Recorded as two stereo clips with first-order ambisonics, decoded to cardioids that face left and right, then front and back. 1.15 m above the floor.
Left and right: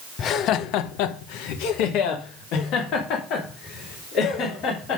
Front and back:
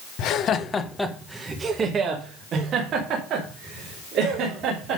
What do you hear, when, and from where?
0.2 s laughter: 35° left, 0.8 m; by 5.0 s 135° left, 3.5 m